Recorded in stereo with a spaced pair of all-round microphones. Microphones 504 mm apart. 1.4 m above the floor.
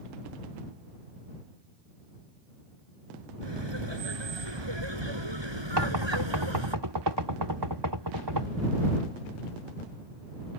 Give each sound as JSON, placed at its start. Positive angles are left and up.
{"t": 3.4, "sound": "laughter", "side_deg": -65}
{"t": 5.8, "sound": "knocking", "side_deg": -60}